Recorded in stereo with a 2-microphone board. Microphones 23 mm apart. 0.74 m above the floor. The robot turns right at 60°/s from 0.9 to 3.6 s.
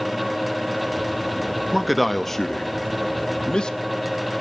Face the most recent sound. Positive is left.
turn(degrees=35)  # may be behind; listen again after turning